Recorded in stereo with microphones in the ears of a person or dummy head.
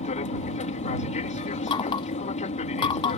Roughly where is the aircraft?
Left.